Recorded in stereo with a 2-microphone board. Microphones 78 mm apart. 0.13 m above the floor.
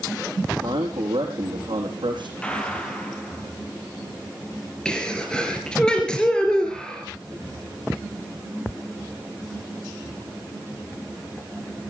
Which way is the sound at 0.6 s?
75° right (ahead or behind).